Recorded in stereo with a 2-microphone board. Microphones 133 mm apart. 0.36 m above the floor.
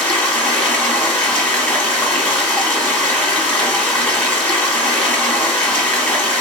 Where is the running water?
10° left (ahead or behind), 1.0 m.